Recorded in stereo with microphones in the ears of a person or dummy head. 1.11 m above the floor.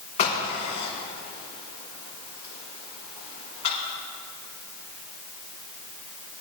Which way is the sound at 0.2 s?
40° left (ahead or behind).